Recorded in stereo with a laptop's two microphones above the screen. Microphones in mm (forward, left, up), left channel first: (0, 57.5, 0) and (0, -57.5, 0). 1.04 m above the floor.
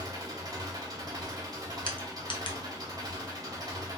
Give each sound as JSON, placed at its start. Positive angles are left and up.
{"t": 0.0, "sound": "an engine running", "side_deg": -30, "distance_m": 0.9}
{"t": 1.9, "sound": "crushing", "side_deg": 45, "distance_m": 0.7}